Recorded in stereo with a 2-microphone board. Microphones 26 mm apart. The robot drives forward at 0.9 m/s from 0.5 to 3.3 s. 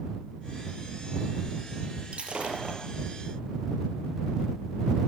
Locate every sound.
2.1 s breaking glass: 45° right (ahead or behind), 5 m; by 2.8 s 40° right (ahead or behind), 5.5 m